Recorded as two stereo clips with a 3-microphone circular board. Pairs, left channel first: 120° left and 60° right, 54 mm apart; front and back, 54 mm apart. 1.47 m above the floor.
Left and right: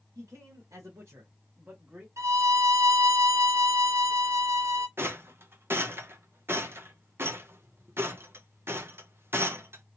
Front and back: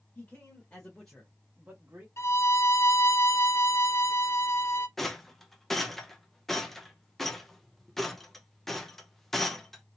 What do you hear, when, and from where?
0.1 s a man speaking: 45° right, 1.8 m; by 2.1 s 130° right, 1.2 m
2.2 s a violin: 35° right, 0.7 m
5.0 s a rattle: 85° right, 0.7 m